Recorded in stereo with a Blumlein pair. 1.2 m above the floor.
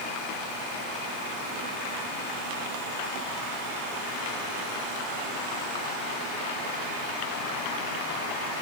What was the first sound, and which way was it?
Only background noise.